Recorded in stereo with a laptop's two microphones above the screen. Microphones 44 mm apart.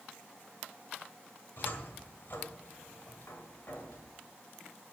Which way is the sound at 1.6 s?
50° left (ahead or behind).